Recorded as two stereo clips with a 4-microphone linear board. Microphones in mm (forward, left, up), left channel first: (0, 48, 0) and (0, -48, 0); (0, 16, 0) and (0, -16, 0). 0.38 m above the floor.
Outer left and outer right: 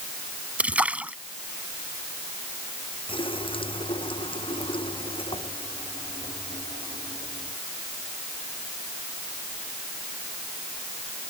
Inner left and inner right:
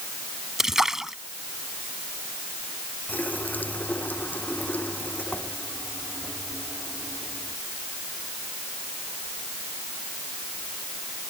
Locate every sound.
0.6 s a splash: 15° right (ahead or behind)
3.1 s a running tap: 65° left (ahead or behind)